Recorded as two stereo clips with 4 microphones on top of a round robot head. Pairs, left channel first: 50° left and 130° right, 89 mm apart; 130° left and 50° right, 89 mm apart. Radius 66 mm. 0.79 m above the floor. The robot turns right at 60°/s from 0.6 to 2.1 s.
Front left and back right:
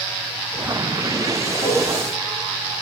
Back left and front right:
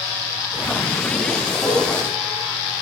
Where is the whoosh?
70° left, 10 m; by 1.8 s 80° left, 10 m.